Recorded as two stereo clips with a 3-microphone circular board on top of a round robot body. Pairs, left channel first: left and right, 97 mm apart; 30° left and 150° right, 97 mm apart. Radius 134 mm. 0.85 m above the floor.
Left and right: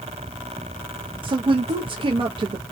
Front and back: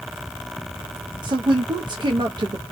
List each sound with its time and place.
1.2 s a woman speaking: 115° right, 0.7 m